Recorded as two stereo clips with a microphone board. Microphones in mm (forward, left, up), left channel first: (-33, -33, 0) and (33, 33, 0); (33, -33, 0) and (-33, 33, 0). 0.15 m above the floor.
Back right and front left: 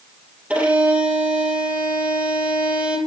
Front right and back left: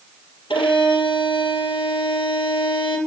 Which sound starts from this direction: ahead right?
A violin, at 0.5 s.